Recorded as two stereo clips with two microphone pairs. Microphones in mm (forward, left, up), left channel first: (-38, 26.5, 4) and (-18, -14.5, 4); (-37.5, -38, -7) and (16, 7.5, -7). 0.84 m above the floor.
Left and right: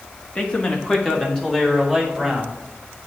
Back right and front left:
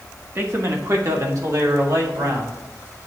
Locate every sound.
0.3 s a man speaking: 70° left, 1.2 m; by 2.6 s 25° left, 2.5 m